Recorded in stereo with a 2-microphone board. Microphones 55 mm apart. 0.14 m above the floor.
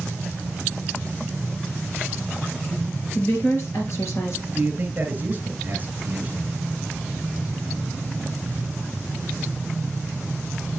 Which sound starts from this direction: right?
A man speaking, at 4.5 s.